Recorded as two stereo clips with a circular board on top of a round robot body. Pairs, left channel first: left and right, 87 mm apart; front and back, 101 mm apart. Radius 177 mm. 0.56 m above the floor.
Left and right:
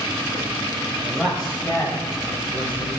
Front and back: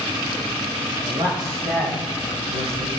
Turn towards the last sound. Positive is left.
turn(degrees=155)